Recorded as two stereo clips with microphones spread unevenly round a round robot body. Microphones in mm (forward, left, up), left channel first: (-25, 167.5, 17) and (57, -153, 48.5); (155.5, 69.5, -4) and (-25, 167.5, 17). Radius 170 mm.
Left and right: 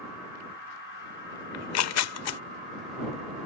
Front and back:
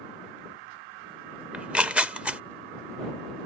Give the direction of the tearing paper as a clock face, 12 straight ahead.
10 o'clock.